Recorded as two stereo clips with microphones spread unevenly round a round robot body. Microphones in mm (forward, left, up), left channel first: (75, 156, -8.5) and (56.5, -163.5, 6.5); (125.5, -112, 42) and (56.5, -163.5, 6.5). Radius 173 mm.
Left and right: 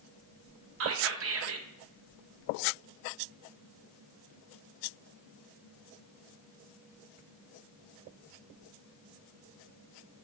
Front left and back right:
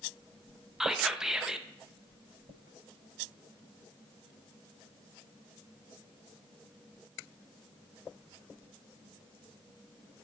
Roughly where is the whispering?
Right.